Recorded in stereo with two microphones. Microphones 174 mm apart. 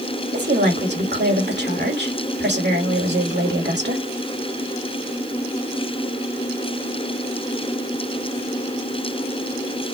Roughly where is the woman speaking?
Right.